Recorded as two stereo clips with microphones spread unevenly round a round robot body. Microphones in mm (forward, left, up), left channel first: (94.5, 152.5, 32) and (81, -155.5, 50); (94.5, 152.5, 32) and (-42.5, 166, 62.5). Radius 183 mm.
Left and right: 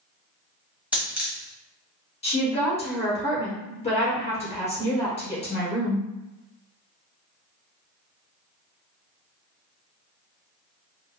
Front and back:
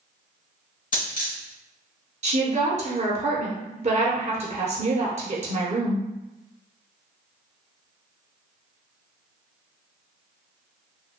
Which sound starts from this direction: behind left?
A woman speaking, at 2.2 s.